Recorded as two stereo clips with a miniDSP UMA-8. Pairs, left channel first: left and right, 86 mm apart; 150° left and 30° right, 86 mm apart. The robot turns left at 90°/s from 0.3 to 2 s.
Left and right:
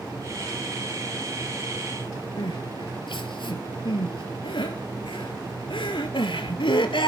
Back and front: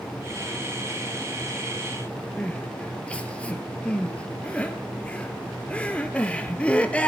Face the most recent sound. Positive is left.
turn(degrees=75)